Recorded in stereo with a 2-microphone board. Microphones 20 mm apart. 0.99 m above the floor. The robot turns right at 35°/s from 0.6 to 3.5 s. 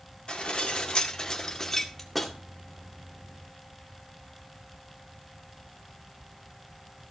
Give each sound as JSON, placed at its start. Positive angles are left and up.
{"t": 0.3, "sound": "dishes clattering", "azimuth_deg": 120, "distance_m": 1.9}